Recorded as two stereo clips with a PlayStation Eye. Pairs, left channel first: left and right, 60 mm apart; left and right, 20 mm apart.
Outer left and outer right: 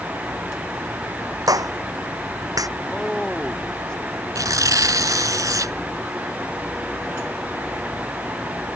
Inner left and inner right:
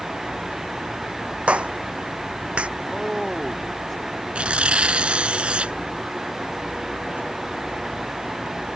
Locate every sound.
1.5 s a clap: 85° right
2.8 s a man speaking: 10° left (ahead or behind)
4.3 s tearing paper: 80° right